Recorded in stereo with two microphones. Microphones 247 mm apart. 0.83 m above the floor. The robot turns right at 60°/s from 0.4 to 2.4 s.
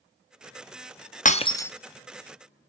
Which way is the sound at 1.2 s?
35° left (ahead or behind).